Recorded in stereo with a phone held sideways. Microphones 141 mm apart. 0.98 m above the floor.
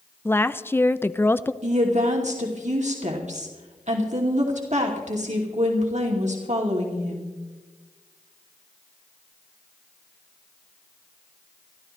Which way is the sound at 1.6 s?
60° right (ahead or behind).